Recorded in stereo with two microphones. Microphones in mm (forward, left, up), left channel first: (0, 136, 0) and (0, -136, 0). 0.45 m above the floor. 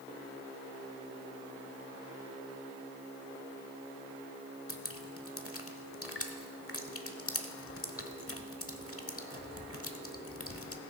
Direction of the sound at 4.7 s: 55° left (ahead or behind).